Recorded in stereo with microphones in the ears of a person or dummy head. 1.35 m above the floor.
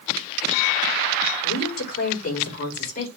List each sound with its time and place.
1.4 s a woman speaking: 50° left (ahead or behind), 5 m; by 3.1 s 40° left (ahead or behind), 5 m